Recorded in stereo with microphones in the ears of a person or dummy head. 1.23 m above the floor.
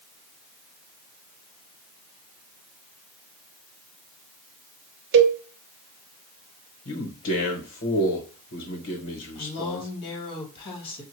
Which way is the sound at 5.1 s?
60° right (ahead or behind).